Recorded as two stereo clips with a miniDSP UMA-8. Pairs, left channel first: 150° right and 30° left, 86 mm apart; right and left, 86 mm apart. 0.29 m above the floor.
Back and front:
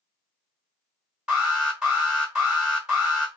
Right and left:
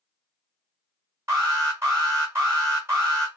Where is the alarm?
100° left, 1.9 m.